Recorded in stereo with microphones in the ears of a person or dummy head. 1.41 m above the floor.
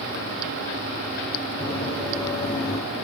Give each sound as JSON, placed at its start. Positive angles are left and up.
{"t": 1.6, "sound": "running footsteps", "side_deg": -10, "distance_m": 2.0}